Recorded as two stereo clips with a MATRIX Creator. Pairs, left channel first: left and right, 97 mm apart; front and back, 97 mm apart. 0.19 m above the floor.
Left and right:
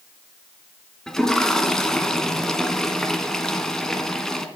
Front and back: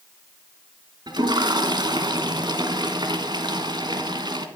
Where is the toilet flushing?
175° left, 1.5 m.